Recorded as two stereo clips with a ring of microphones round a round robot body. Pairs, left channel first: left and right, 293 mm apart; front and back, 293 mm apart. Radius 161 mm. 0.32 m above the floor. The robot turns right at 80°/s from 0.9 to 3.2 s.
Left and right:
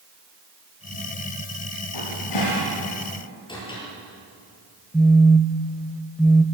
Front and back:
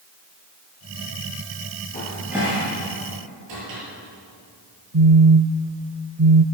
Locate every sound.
1.9 s a cupboard door: 65° left, 8.5 m; by 3.8 s 165° left, 8.5 m
4.9 s a phone buzzing: 175° left, 0.9 m